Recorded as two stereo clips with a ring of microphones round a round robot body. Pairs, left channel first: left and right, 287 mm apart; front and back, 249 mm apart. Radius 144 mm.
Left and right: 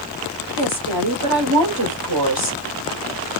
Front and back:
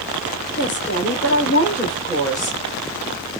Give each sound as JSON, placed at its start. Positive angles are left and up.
{"t": 0.6, "sound": "a woman speaking", "azimuth_deg": -65, "distance_m": 2.0}